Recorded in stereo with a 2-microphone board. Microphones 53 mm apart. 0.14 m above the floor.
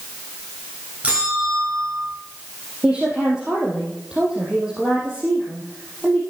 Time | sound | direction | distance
1.0 | a bell | 25° right (ahead or behind) | 7 m
2.8 | a woman speaking | 15° right (ahead or behind) | 4 m